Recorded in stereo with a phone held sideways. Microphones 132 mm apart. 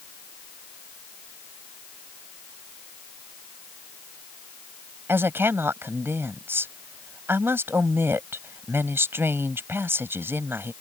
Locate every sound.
5.1 s a woman speaking: 15° right (ahead or behind)